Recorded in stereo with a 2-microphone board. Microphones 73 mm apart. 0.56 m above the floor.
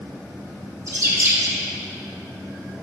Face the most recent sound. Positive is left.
turn(degrees=-45)  # may be behind; listen again after turning